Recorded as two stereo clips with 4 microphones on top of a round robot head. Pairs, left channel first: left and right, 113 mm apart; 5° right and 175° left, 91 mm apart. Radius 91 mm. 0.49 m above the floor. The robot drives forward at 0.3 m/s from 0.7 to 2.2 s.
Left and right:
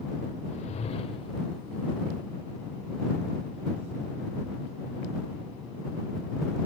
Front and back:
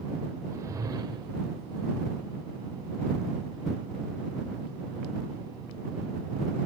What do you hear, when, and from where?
0.5 s a whoosh: 120° left, 0.5 m; by 1.4 s 135° left, 0.6 m